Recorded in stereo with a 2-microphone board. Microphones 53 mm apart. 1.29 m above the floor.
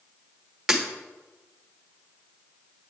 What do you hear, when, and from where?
0.7 s breaking glass: 5° right (ahead or behind), 1.1 m